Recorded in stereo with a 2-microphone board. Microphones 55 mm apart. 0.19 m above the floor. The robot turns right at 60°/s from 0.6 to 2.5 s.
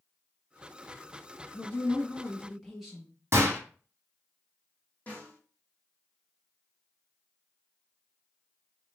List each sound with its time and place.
1.5 s a woman speaking: 120° left, 1.5 m; by 3.1 s 175° left, 1.5 m
3.3 s a gunshot: 45° right (ahead or behind), 1.7 m
5.1 s a snare drum: 25° left (ahead or behind), 2 m